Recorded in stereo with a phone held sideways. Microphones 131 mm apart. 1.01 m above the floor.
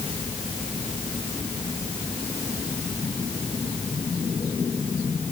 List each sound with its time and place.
Only background noise.